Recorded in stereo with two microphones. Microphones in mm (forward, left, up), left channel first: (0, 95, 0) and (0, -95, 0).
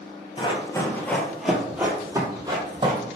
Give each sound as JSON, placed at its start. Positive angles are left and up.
{"t": 0.4, "sound": "running footsteps", "side_deg": 25, "distance_m": 1.2}